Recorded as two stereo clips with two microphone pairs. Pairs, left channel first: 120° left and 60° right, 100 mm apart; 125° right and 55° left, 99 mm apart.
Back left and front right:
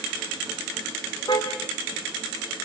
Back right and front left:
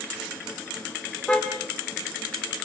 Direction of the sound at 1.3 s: 160° left.